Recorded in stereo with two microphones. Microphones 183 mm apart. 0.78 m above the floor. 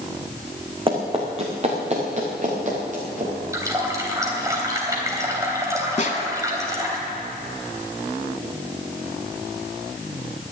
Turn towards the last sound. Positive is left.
turn(degrees=50)  # may be behind; listen again after turning